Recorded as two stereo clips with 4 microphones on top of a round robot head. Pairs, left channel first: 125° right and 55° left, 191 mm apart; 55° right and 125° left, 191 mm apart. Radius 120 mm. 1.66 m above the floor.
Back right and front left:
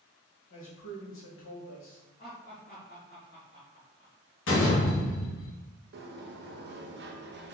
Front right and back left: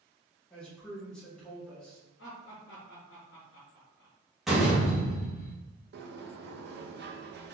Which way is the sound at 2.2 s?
80° right.